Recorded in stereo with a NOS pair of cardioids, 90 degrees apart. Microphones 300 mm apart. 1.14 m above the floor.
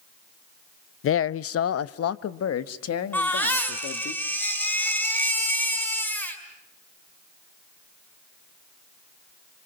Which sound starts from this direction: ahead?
A baby crying, at 3.1 s.